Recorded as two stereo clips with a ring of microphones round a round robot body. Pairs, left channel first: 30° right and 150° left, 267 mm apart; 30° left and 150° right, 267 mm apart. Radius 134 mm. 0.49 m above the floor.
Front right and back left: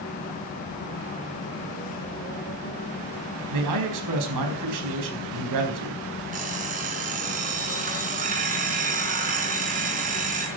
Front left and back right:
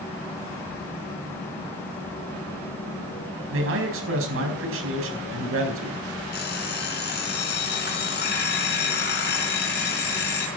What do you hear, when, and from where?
3.5 s a man speaking: 165° left, 4.5 m
6.3 s an alarm clock: 85° left, 4 m